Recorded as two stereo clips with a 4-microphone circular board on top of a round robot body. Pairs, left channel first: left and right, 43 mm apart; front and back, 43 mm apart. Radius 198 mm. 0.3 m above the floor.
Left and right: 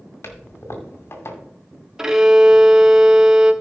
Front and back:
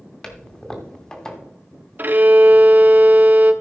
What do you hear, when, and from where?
0.2 s a toilet flushing: 75° left, 2.5 m
2.0 s a violin: 160° right, 1.4 m